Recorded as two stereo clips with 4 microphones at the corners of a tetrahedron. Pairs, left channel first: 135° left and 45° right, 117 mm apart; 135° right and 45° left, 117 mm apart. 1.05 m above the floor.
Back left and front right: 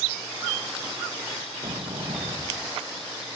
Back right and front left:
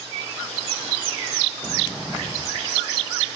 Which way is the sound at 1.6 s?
65° right.